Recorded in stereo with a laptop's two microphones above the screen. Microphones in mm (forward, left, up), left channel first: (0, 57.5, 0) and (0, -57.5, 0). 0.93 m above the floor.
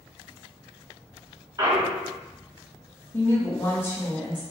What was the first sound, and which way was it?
A clunk, 35° right (ahead or behind).